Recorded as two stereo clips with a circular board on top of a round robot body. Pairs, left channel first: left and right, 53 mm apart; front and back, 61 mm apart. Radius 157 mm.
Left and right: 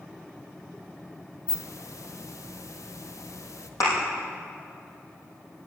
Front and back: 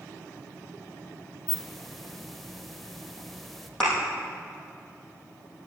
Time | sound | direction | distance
1.5 | a hiss | 90° left | 1.0 m
3.8 | a thud | 85° left | 4.5 m